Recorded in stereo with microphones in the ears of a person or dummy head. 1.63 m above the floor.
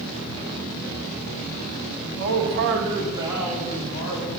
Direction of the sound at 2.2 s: 65° right (ahead or behind).